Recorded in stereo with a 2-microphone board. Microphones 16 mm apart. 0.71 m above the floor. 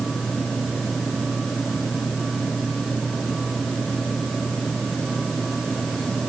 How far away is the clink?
No clink in this recording.